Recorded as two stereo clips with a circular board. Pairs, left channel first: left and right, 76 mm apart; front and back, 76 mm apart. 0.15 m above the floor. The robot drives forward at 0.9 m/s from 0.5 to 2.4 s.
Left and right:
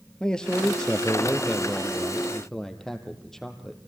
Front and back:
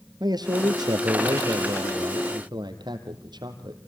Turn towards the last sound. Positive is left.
turn(degrees=175)